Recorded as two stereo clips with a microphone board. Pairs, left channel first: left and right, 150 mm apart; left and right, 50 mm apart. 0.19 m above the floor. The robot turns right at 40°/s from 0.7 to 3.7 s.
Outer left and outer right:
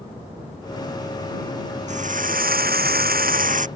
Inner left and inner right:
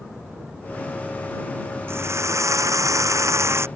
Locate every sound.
1.9 s a drill: 130° right; by 3.7 s 60° right